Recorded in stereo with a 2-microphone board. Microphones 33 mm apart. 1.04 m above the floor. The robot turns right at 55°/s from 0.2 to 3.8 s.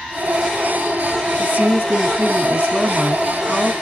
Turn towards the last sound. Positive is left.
turn(degrees=25)